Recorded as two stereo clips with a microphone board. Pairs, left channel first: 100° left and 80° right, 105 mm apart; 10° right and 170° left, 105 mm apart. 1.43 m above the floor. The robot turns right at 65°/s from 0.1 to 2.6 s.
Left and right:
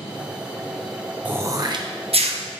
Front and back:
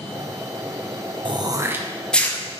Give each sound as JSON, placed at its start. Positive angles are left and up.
{"t": 1.2, "sound": "throat clearing", "azimuth_deg": -150, "distance_m": 0.8}